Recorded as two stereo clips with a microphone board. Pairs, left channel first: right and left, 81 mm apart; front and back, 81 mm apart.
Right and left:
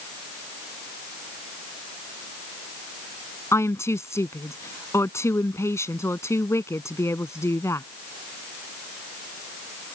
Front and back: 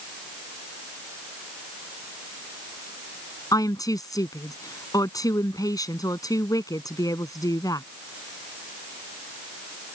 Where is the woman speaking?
35° right.